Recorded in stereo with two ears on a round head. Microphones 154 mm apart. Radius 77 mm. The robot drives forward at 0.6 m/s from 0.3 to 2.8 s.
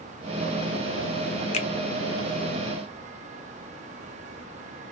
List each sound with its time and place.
1.5 s a finger snap: 40° left (ahead or behind), 0.9 m; by 1.7 s 45° left (ahead or behind), 0.8 m